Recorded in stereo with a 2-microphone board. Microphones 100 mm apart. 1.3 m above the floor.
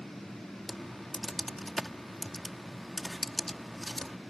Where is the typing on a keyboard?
Centre (ahead or behind).